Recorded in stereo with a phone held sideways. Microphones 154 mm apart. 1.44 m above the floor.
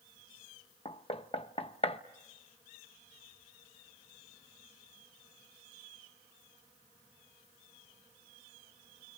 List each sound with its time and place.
0.8 s knocking: 40° left (ahead or behind), 0.9 m